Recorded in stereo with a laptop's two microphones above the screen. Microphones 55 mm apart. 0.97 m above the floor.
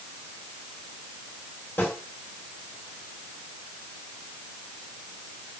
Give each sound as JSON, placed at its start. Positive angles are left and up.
{"t": 1.8, "sound": "a snare drum", "side_deg": 35, "distance_m": 2.0}